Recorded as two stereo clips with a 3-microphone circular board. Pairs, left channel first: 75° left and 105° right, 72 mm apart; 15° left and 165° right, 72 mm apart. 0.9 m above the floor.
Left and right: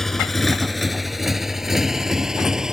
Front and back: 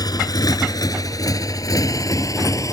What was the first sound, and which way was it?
A motorcycle, 10° right.